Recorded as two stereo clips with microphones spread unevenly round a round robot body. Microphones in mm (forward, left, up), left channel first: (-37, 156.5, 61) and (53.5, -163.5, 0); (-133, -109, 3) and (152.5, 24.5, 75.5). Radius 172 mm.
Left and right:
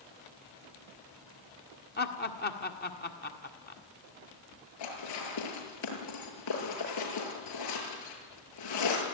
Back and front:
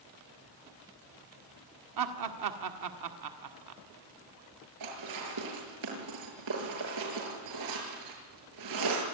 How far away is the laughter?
About 1.8 m.